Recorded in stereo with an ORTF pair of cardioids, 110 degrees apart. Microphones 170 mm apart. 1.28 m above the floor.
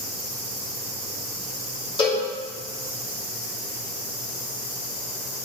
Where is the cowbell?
30° left, 3 m.